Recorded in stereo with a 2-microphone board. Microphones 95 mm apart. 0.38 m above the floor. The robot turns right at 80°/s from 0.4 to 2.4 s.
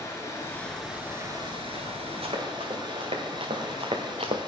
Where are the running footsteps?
85° right, 4 m; by 4.4 s 75° right (ahead or behind), 1.6 m.